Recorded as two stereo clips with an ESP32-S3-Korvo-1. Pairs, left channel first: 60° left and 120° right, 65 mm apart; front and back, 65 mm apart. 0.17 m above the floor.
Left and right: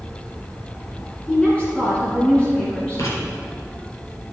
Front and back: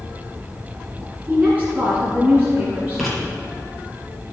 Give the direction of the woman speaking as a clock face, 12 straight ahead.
8 o'clock.